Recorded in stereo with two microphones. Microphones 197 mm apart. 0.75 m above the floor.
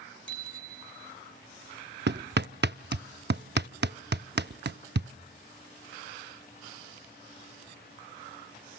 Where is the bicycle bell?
75° left (ahead or behind), 3.5 m.